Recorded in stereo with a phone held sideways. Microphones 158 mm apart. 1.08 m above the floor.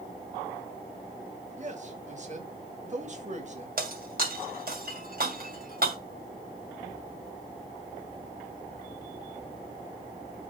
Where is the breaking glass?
60° right (ahead or behind), 2 m.